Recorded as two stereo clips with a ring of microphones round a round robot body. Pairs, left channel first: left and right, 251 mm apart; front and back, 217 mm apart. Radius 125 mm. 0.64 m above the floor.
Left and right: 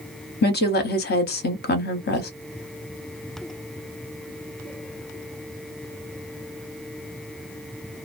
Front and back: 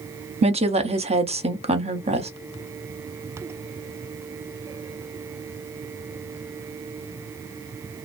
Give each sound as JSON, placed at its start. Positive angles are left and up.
{"t": 0.4, "sound": "a woman speaking", "azimuth_deg": 125, "distance_m": 0.7}